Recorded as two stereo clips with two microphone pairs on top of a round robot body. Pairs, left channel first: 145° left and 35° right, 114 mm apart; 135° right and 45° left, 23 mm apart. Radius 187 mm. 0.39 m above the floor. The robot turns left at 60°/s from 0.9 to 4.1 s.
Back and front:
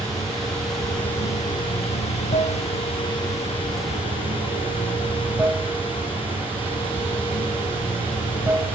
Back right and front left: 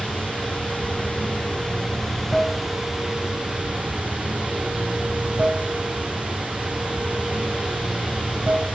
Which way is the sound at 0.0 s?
130° right.